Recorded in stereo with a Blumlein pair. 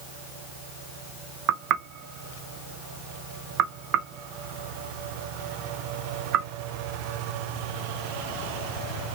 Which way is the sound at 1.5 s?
35° right.